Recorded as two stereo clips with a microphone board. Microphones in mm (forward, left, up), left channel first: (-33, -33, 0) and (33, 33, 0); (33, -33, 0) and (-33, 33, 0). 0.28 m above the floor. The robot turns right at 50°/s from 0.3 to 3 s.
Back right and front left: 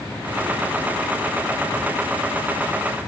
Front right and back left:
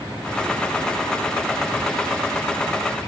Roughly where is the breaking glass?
I don't hear breaking glass.